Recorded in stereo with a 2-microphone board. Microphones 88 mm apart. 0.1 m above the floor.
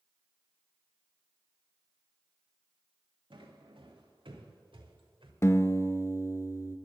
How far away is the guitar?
About 0.7 m.